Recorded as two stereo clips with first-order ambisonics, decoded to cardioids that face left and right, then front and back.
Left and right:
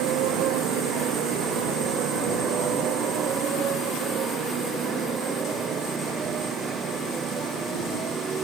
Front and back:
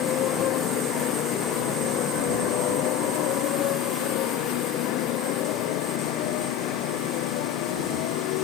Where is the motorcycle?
50° right; by 8.4 s 20° right.